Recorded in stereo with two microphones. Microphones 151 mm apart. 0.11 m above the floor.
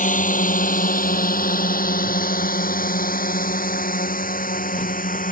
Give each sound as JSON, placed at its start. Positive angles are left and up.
{"t": 0.0, "sound": "a drone", "side_deg": 60}